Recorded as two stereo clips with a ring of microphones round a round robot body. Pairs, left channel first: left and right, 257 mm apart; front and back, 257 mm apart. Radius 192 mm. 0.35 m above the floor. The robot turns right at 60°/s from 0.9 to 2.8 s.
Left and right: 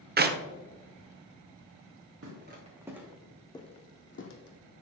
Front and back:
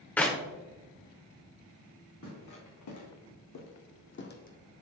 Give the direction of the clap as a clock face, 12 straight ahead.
3 o'clock.